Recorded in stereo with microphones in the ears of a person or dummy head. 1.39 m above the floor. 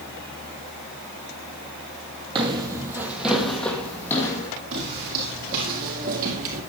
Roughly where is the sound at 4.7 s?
Right.